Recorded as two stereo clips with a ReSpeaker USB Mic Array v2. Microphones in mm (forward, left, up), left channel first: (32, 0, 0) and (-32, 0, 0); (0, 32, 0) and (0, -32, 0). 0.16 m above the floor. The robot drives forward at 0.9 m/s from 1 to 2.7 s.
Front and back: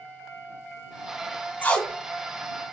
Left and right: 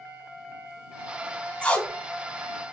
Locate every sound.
1.6 s tape being pulled: 35° left, 0.7 m; by 1.9 s 80° left, 0.6 m